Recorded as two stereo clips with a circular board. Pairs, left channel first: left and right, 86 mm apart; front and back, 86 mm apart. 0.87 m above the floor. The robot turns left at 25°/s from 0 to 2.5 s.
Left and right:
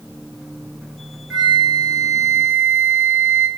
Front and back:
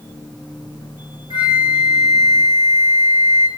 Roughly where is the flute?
Behind.